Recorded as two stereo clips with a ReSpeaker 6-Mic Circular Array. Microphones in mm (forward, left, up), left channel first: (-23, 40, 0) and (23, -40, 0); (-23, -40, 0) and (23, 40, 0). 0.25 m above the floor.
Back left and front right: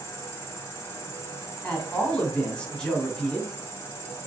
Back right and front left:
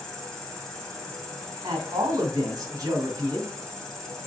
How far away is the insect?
About 1.5 m.